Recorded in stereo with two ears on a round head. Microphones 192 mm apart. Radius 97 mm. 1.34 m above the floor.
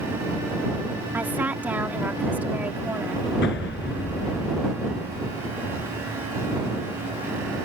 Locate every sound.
1.1 s a woman speaking: 10° right (ahead or behind)
3.4 s an explosion: 50° left (ahead or behind)